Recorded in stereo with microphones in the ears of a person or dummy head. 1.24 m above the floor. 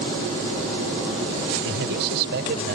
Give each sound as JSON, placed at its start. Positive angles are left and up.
{"t": 1.6, "sound": "a man speaking", "side_deg": -60}